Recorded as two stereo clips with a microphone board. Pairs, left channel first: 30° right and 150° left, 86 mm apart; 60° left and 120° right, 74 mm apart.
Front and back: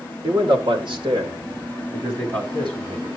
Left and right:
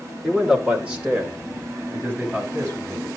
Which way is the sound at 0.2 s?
155° left.